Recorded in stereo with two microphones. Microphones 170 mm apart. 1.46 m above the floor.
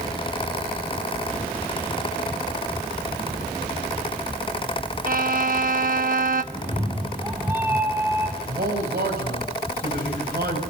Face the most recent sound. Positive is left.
turn(degrees=-70)  # may be behind; listen again after turning